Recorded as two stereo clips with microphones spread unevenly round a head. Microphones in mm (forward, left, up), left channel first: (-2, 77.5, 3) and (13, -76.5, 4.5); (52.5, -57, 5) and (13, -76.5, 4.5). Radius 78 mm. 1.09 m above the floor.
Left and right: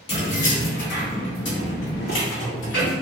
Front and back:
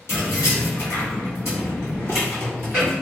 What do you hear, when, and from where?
0.1 s keys jangling: 45° left, 1.7 m; by 2.9 s 115° left, 1.8 m